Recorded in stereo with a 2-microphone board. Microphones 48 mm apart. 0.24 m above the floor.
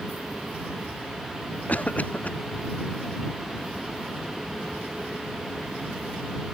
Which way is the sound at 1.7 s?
35° left (ahead or behind).